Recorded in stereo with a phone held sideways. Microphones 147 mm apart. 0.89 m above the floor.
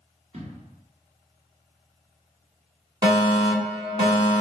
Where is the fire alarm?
30° right (ahead or behind), 1.4 m.